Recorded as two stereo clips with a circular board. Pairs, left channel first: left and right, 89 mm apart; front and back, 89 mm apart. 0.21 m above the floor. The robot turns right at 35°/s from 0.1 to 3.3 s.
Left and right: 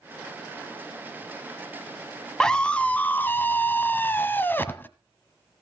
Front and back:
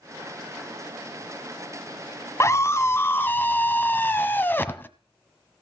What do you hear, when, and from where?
2.4 s a scream: 15° left, 1.2 m; by 4.9 s 45° left, 1.2 m